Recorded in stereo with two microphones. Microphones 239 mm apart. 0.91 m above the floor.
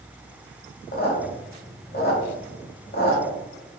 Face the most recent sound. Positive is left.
turn(degrees=45)  # may be behind; listen again after turning